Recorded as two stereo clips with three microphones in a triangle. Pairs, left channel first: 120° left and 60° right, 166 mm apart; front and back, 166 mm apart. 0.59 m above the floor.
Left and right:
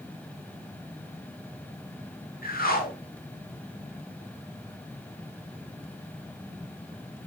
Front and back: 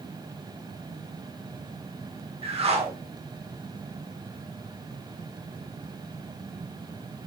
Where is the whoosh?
130° left, 1.1 m.